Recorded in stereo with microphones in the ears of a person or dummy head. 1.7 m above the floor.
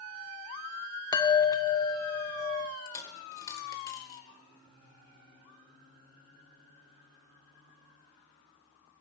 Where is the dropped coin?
15° left (ahead or behind), 1.8 m.